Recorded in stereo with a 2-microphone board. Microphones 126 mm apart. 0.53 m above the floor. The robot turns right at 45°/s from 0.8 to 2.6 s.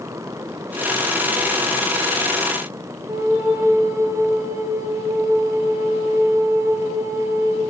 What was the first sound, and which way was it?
A flute, 25° right (ahead or behind).